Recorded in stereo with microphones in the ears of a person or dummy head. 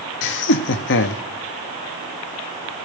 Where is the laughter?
60° left (ahead or behind), 0.7 m.